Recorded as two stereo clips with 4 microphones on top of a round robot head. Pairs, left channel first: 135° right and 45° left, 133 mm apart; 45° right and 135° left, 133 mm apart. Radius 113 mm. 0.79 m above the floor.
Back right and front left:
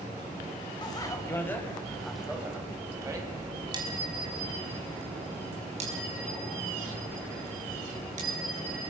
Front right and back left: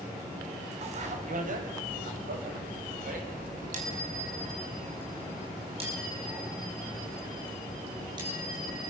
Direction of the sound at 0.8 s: 170° left.